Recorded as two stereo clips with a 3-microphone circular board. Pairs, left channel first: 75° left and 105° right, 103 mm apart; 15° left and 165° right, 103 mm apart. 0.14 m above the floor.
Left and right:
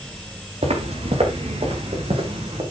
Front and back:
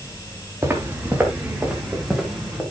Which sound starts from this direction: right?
Footsteps, at 0.6 s.